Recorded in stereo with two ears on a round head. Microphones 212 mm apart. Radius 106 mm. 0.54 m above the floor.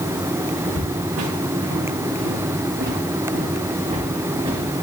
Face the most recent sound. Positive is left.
turn(degrees=-15)  # may be behind; listen again after turning